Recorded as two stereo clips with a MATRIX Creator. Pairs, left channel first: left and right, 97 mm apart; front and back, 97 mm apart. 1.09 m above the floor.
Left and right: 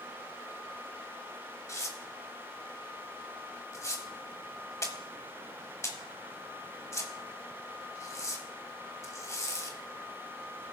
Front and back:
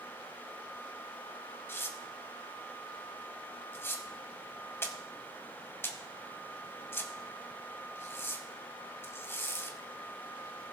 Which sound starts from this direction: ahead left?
Tearing paper, at 1.7 s.